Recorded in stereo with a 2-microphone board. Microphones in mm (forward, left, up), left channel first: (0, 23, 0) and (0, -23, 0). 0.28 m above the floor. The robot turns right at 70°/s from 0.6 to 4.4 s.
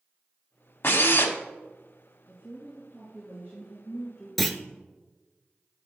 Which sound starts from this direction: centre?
A clunk, at 4.4 s.